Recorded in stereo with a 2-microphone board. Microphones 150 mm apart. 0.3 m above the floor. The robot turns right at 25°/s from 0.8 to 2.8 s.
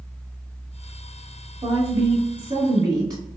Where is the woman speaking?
40° right (ahead or behind), 1.3 m; by 3.2 s 25° right (ahead or behind), 1.3 m.